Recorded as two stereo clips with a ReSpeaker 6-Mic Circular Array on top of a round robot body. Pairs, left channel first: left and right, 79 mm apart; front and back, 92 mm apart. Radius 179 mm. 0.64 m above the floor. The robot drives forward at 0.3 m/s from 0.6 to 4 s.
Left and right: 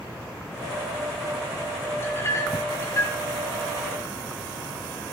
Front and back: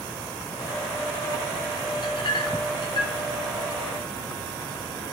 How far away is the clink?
About 1.8 m.